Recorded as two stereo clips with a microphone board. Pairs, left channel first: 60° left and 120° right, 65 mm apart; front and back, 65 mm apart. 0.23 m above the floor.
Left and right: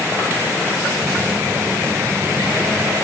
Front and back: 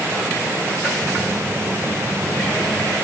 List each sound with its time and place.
1.0 s a phone buzzing: 45° right, 3 m